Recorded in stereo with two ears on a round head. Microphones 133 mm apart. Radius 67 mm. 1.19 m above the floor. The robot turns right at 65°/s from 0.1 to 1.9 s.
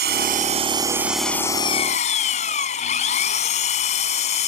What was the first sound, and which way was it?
An engine running, 70° right.